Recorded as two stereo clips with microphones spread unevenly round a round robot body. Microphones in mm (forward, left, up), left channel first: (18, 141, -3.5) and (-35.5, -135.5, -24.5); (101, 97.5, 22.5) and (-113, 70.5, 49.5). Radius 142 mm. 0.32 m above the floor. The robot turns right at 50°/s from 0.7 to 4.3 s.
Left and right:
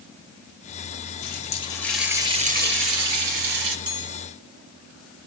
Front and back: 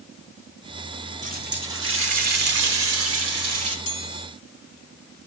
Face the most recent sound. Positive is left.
turn(degrees=-5)